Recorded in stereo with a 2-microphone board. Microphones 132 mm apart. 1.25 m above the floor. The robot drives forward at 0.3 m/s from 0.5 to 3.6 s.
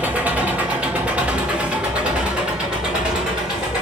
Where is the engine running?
10° right (ahead or behind), 0.8 m; by 3.8 s 5° right (ahead or behind), 1.4 m.